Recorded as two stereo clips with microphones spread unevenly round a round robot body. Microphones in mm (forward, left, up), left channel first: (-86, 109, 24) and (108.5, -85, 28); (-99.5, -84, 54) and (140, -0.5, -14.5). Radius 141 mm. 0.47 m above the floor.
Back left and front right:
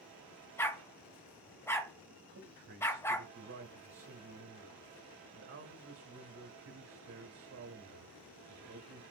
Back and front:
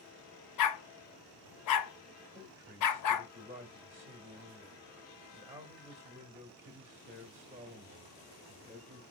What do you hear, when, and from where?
0.6 s a dog barking: 145° right, 0.8 m
2.3 s a man speaking: 45° right, 1.9 m